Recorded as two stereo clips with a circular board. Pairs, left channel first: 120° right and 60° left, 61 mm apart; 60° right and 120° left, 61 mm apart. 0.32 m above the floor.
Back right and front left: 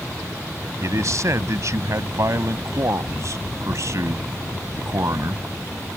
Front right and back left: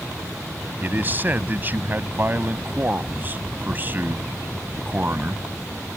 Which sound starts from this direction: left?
A man speaking, at 0.8 s.